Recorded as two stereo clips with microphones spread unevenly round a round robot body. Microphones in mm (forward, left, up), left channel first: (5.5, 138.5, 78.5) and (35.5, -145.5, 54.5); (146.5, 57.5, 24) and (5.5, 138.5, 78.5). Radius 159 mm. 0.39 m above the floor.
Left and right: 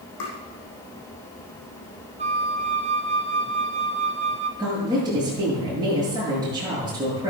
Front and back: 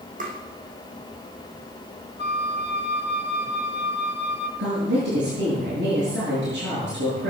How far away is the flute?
About 2 m.